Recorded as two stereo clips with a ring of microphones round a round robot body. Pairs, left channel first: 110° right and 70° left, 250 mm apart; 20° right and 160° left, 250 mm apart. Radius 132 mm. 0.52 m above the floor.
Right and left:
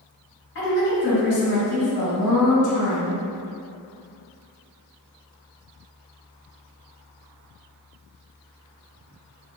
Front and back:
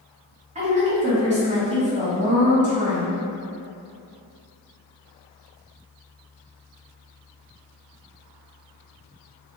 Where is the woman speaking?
145° right, 2.0 m.